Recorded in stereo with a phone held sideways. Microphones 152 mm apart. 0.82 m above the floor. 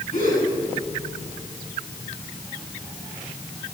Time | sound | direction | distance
0.1 | a gasp | 55° left (ahead or behind) | 8 m